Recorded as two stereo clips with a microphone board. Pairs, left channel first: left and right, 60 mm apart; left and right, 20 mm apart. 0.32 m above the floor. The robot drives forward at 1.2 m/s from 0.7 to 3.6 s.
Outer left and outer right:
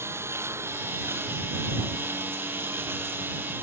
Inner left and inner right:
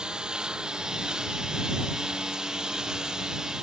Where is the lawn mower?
45° right (ahead or behind); by 3.6 s 40° right (ahead or behind).